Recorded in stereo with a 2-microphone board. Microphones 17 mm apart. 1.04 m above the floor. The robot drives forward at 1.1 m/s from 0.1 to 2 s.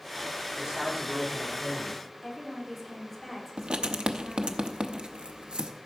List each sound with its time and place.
0.6 s a man speaking: 35° right (ahead or behind), 3.5 m; by 2.0 s 55° right (ahead or behind), 2.5 m
2.2 s a woman speaking: 5° left (ahead or behind), 3.5 m
3.6 s writing: 60° right (ahead or behind), 0.7 m